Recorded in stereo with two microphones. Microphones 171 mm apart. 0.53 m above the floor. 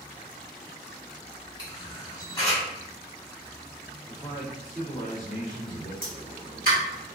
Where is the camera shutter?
20° left (ahead or behind), 1.2 m.